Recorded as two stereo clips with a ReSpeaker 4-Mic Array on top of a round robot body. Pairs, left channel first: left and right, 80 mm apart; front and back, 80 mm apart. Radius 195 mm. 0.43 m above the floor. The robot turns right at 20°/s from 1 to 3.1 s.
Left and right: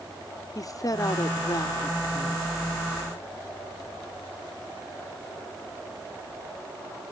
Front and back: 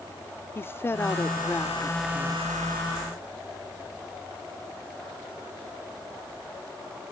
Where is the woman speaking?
55° left; by 2.5 s 85° left.